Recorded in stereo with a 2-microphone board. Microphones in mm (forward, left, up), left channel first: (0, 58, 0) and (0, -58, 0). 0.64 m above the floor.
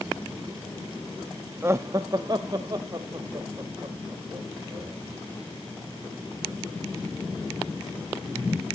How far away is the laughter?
About 0.6 m.